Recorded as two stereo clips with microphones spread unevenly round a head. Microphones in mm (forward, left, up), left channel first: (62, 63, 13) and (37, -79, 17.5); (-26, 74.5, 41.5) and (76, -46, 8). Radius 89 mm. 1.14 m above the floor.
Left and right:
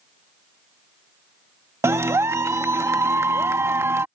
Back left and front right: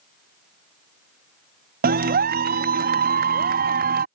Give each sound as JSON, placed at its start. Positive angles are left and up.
{"t": 1.8, "sound": "a clap", "azimuth_deg": -30}